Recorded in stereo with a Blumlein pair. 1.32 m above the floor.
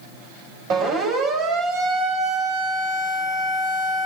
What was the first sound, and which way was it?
A siren, 35° right.